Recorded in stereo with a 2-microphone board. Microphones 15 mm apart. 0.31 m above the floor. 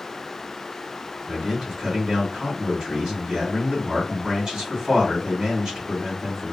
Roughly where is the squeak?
No squeak in this recording.